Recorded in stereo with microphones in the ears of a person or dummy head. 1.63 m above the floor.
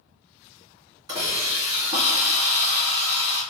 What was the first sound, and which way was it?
A hiss, 25° right (ahead or behind).